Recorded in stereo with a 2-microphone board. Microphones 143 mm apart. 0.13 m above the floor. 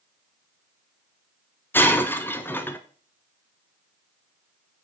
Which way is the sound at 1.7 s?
15° left (ahead or behind).